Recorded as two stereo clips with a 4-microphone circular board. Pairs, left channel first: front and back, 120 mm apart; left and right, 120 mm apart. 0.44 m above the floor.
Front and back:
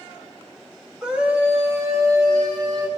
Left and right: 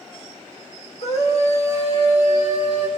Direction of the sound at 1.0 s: 95° left.